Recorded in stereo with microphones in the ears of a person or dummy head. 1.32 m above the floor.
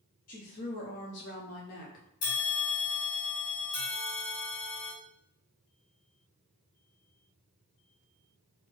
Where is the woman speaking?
40° left (ahead or behind), 0.8 m.